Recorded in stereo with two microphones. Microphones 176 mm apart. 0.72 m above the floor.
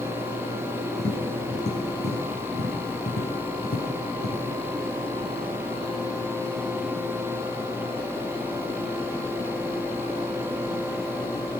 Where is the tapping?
70° left (ahead or behind), 6 m.